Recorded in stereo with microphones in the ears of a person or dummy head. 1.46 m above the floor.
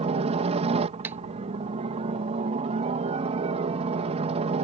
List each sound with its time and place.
0.0 s a helicopter: 30° right (ahead or behind)
1.0 s a clap: 15° right (ahead or behind)